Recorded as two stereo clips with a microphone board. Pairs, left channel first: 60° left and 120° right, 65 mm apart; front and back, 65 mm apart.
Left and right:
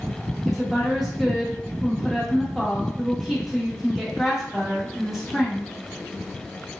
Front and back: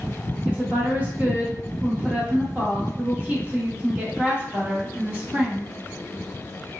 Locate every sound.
0.5 s a woman speaking: 160° left, 0.7 m